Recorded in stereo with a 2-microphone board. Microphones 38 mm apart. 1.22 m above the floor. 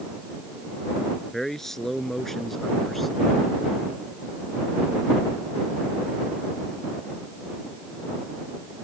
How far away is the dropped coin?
No dropped coin in this recording.